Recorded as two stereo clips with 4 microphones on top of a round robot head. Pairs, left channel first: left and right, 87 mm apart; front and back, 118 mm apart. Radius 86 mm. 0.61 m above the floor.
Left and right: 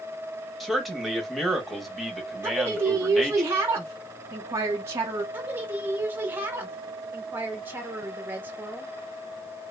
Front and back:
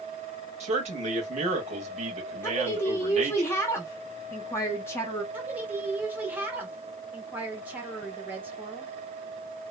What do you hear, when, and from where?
0.6 s a man speaking: straight behind, 1.4 m
2.4 s a woman speaking: 55° right, 0.6 m
5.3 s a woman speaking: 125° right, 0.9 m